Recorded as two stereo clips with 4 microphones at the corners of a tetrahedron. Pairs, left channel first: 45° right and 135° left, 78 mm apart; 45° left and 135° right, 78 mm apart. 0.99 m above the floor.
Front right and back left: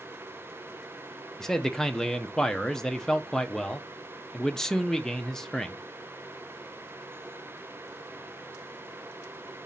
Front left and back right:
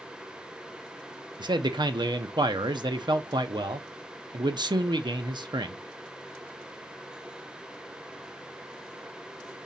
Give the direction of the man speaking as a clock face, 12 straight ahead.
4 o'clock.